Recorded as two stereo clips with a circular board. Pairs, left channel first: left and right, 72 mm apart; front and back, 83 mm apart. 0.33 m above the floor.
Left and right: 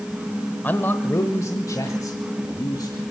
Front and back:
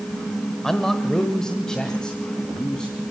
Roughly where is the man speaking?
Left.